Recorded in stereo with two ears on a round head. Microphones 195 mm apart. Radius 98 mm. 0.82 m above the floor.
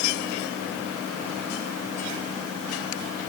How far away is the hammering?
No hammering in this recording.